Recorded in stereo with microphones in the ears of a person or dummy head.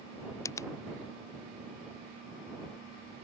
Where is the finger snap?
15° left (ahead or behind).